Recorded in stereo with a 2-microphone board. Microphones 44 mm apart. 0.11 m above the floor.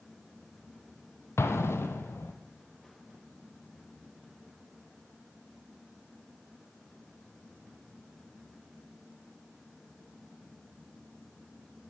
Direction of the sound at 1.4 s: 75° left (ahead or behind).